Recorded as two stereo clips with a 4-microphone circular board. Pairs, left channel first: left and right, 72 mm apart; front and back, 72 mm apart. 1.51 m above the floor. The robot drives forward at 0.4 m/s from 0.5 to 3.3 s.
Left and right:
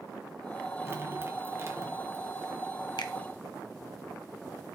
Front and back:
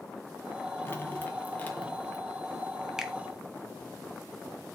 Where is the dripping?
50° right, 2 m; by 2.2 s 65° right, 1.8 m.